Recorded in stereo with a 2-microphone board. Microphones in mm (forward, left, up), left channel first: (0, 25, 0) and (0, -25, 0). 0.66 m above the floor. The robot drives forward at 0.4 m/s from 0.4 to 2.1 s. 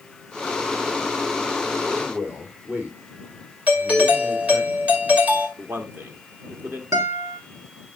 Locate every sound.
1.9 s a man speaking: 35° right (ahead or behind), 2.5 m
3.7 s a doorbell: 30° right (ahead or behind), 2 m
5.6 s a man speaking: 45° right (ahead or behind), 1.2 m
6.9 s a guitar: 75° right (ahead or behind), 1.7 m